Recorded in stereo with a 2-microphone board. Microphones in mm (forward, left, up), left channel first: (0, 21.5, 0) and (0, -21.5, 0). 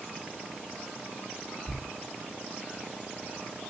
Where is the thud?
20° right (ahead or behind), 0.9 m.